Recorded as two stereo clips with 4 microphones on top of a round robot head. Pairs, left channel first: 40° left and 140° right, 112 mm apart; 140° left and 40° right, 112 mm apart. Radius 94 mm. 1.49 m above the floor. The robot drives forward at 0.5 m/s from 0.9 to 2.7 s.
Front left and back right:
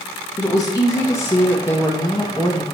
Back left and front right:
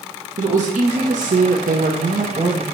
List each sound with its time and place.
0.4 s a woman speaking: 25° right, 1.0 m; by 2.6 s 85° right, 0.5 m